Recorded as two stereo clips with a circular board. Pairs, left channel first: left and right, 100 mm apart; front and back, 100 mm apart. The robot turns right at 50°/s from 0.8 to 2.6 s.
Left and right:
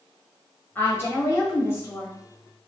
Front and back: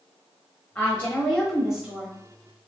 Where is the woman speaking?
55° left, 1.1 m; by 2.1 s 120° left, 1.1 m.